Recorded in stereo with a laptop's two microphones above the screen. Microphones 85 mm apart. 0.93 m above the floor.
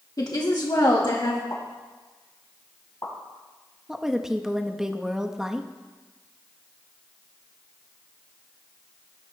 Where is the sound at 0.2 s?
50° left (ahead or behind), 1.1 m; by 1.4 s 65° left (ahead or behind), 1.7 m.